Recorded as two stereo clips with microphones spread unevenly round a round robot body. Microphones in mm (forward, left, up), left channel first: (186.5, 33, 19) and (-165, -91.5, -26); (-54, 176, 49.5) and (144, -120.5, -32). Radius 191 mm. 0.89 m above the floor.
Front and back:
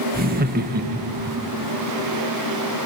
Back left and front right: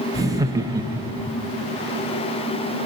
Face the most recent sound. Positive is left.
turn(degrees=-115)